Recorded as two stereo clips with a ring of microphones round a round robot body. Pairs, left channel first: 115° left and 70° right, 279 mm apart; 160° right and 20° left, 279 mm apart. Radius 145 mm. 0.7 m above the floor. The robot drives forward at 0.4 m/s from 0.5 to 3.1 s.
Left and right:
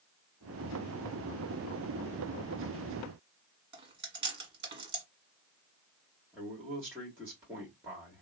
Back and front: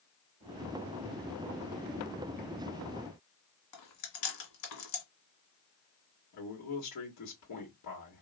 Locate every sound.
3.7 s chewing: 140° right, 1.6 m
6.3 s a man speaking: 150° right, 1.5 m